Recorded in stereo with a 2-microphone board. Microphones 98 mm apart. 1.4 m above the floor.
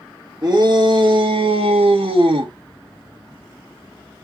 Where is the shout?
45° right (ahead or behind), 1.2 m; by 2.5 s 55° right (ahead or behind), 0.8 m.